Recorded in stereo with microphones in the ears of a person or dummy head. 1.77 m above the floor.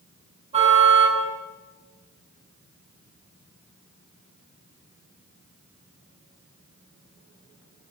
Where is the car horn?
35° right (ahead or behind), 8 m.